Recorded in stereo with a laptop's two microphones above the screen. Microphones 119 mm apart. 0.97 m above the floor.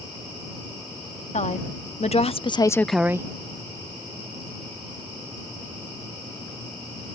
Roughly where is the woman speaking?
Left.